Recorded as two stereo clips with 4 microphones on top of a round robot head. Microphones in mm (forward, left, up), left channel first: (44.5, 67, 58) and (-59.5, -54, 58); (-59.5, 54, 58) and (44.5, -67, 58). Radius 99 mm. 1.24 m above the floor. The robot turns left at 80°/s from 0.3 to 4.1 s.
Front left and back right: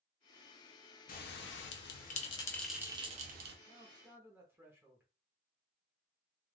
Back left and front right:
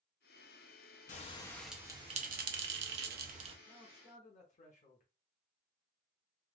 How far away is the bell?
About 0.5 m.